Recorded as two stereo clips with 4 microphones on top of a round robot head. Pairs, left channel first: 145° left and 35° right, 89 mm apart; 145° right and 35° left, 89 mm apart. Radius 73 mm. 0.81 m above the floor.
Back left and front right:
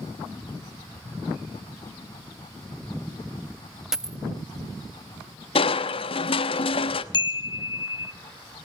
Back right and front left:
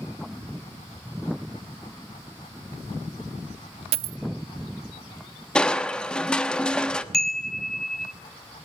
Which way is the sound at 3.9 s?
45° left.